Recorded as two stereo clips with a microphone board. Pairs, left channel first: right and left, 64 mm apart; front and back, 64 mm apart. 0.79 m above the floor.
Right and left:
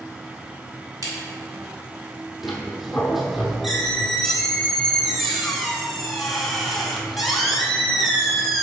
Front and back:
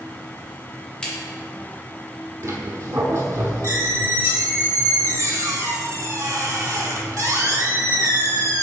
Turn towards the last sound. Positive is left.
turn(degrees=180)